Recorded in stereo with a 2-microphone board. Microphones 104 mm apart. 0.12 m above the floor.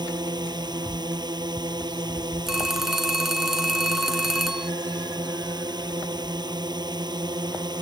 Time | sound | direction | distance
0.0 | a drone | 45° right (ahead or behind) | ?
2.5 | a phone ringing | 5° right (ahead or behind) | ?